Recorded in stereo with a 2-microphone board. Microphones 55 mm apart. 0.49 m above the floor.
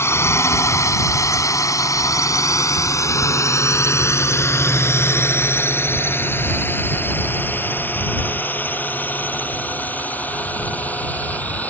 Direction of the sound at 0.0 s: 50° left (ahead or behind).